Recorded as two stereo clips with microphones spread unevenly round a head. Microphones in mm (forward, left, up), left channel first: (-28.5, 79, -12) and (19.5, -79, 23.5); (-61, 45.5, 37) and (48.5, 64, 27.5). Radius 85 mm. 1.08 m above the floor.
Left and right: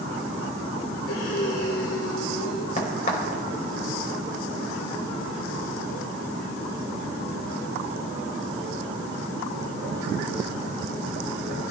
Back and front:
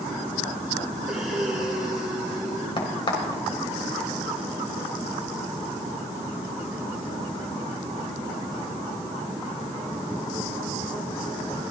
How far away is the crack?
About 3.5 m.